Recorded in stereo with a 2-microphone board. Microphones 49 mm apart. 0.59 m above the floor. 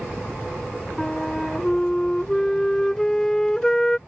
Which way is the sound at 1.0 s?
10° left (ahead or behind).